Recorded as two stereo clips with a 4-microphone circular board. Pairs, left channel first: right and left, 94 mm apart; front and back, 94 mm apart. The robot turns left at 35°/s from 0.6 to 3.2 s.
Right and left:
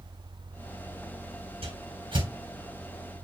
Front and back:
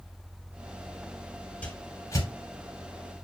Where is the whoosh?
75° left, 2.5 m; by 3.2 s 20° left, 2.5 m.